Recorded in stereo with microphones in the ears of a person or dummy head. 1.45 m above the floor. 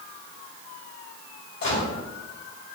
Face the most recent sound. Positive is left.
turn(degrees=60)  # may be behind; listen again after turning